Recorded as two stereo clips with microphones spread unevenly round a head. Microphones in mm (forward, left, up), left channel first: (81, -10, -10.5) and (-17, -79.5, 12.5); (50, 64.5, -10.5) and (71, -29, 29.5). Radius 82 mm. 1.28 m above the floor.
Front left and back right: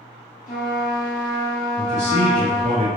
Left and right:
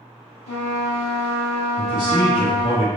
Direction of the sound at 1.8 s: 170° left.